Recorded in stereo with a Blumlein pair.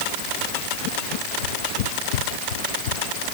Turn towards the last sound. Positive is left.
turn(degrees=60)